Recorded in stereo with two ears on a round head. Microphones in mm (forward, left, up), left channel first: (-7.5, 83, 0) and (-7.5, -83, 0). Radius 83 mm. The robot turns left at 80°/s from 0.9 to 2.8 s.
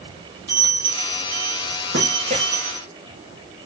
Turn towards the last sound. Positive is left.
turn(degrees=180)